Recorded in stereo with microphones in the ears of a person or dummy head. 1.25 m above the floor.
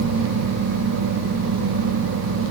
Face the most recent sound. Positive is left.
No sound to turn to.